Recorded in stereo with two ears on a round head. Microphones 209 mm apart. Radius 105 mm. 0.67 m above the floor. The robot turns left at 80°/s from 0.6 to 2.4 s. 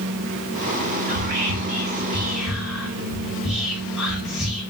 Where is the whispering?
45° right (ahead or behind), 0.7 m; by 4.6 s centre (ahead or behind), 0.7 m.